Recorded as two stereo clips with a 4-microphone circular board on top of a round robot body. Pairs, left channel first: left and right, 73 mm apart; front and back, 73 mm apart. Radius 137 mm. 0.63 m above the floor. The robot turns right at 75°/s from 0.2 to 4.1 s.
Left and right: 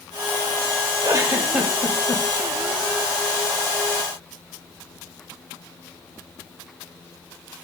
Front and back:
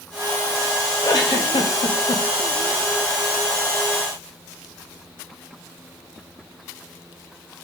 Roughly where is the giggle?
Ahead right.